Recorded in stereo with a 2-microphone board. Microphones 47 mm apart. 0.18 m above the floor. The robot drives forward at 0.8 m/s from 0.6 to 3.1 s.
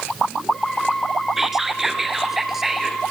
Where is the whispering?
5° right (ahead or behind), 3 m.